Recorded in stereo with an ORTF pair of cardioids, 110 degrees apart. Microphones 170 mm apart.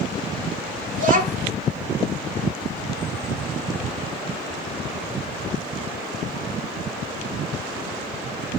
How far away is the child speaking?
About 2.5 m.